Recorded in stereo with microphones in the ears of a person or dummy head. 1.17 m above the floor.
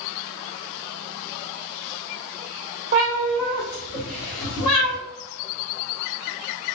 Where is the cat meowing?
25° right (ahead or behind), 0.6 m; by 5.0 s 70° left (ahead or behind), 1.4 m.